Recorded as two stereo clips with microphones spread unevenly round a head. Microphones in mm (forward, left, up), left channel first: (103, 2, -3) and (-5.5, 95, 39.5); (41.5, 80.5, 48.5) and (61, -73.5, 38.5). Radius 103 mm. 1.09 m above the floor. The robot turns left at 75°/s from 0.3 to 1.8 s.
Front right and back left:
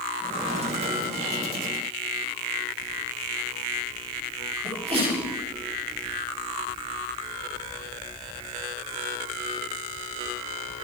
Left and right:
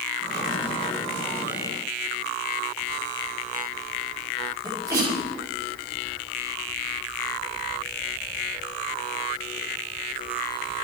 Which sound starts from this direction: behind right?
A sneeze, at 4.6 s.